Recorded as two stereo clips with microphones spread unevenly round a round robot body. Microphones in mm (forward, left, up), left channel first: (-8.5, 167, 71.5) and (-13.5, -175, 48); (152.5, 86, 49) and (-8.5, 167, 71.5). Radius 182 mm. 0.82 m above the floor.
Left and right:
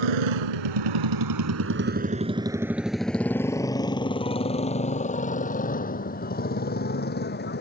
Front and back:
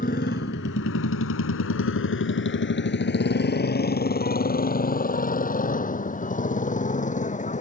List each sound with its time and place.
0.0 s a motorcycle: 95° right; by 7.6 s 25° left